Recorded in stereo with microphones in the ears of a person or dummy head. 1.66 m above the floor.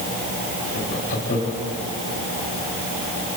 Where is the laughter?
50° left (ahead or behind), 4 m.